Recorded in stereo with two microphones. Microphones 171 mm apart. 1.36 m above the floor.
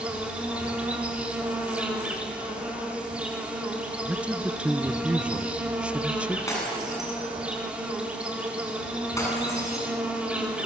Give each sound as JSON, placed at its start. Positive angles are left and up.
{"t": 0.0, "sound": "an insect", "side_deg": -10, "distance_m": 4.0}
{"t": 4.0, "sound": "a man speaking", "side_deg": -10, "distance_m": 0.7}
{"t": 6.5, "sound": "breaking glass", "side_deg": 15, "distance_m": 8.5}